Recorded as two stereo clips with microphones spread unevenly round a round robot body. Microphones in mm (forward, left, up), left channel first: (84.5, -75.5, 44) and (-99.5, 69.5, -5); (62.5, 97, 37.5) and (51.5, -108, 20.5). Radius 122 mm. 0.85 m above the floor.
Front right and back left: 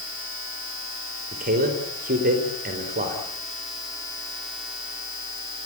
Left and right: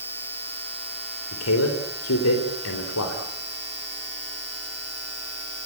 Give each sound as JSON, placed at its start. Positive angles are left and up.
{"t": 1.3, "sound": "a man speaking", "azimuth_deg": 85, "distance_m": 3.5}